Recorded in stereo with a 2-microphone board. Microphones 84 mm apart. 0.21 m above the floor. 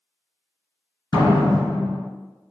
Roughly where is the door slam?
Left.